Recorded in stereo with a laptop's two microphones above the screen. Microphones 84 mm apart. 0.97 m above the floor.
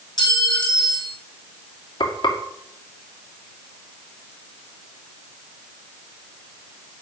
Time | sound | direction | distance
0.2 | a clink | 55° left (ahead or behind) | 4 m
2.0 | frying | 70° left (ahead or behind) | 2.5 m